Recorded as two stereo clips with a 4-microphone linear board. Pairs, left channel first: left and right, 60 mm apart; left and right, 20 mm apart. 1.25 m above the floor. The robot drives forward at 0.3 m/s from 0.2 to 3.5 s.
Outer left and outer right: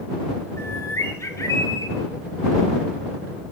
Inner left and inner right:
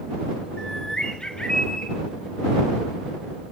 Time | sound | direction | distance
0.6 | a bird | 45° left (ahead or behind) | 1.1 m